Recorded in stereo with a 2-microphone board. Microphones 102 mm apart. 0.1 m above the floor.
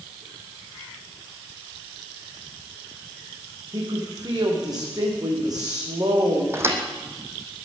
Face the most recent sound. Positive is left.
turn(degrees=-25)  # may be behind; listen again after turning